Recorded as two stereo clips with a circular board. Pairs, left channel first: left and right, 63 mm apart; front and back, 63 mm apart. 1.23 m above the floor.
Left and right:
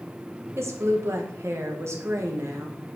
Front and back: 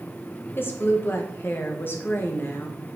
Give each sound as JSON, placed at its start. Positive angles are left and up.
{"t": 0.6, "sound": "a woman speaking", "azimuth_deg": -50, "distance_m": 1.2}